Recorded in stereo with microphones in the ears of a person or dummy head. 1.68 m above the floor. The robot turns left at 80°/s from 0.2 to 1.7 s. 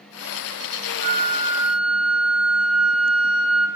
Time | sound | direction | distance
1.0 | a flute | 120° right | 0.8 m